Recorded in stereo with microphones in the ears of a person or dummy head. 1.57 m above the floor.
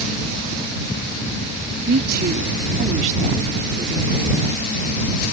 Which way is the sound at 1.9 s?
65° right (ahead or behind).